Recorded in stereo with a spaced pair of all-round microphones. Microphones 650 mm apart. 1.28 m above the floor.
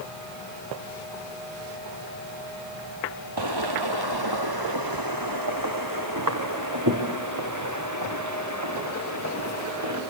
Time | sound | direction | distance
3.4 | footsteps | 35° right (ahead or behind) | 1.7 m